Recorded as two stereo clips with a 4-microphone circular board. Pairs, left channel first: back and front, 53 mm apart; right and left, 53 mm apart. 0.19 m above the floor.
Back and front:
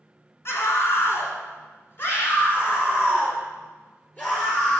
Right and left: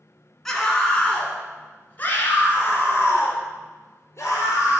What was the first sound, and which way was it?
A scream, 170° right.